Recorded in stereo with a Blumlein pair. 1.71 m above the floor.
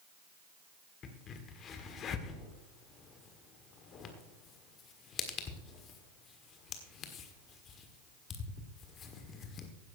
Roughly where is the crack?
Ahead left.